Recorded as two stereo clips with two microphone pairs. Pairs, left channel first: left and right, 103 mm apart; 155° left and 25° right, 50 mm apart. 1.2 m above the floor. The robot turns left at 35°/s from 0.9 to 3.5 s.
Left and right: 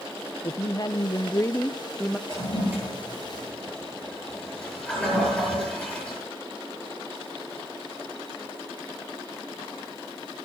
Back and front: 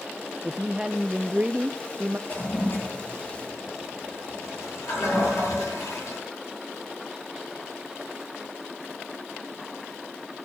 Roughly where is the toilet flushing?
Behind right.